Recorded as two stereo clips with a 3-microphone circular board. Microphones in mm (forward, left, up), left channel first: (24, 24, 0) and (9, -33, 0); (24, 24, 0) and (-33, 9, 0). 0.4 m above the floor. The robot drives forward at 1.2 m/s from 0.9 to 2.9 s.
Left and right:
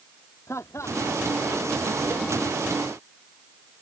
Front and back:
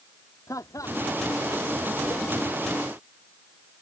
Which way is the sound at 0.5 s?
35° left.